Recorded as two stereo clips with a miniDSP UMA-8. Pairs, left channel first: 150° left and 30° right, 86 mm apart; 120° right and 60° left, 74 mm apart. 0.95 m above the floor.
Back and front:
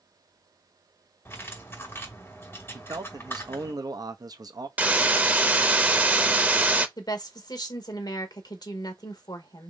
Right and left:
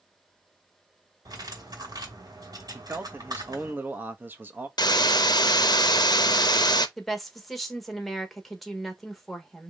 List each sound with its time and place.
1.2 s cutlery clinking: 85° left, 2.5 m
2.7 s a man speaking: straight ahead, 0.7 m
4.8 s a hiss: 100° right, 0.6 m
7.0 s a woman speaking: 155° left, 1.1 m